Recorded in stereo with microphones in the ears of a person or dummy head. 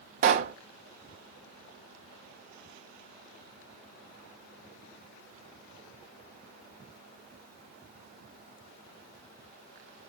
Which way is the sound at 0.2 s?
50° right (ahead or behind).